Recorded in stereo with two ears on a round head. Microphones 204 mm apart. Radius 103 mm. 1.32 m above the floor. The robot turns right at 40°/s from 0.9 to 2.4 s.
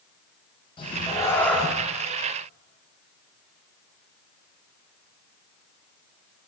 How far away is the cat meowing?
About 0.6 m.